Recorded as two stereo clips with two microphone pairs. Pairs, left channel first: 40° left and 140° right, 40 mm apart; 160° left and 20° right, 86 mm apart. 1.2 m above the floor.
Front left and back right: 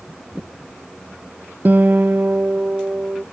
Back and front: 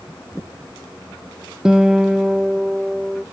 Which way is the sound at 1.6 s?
100° right.